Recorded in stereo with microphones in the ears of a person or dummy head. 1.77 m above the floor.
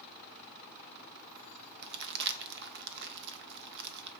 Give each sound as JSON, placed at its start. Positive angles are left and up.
{"t": 1.8, "sound": "crumpling", "side_deg": -55, "distance_m": 0.7}